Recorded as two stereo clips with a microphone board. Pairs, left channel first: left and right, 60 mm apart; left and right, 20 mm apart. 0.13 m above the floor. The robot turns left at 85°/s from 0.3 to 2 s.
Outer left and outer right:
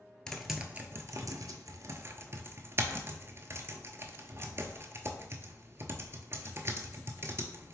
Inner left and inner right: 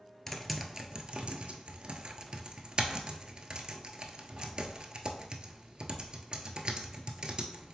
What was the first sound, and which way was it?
Typing on a keyboard, 10° left (ahead or behind).